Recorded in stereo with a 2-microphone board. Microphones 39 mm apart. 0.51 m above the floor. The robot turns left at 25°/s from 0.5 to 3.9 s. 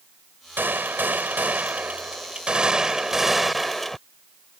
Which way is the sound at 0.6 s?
105° right.